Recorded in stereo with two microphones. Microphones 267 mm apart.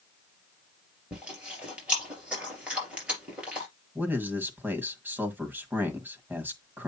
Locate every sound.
1.1 s chewing: 5° right (ahead or behind), 4 m
4.0 s a man speaking: 5° right (ahead or behind), 1.7 m